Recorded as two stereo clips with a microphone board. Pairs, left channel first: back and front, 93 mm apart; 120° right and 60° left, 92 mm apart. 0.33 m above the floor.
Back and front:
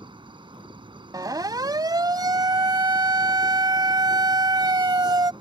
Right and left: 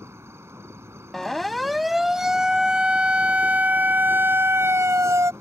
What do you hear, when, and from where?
0.0 s an insect: 5° left
1.1 s a siren: 35° right; by 5.3 s 20° left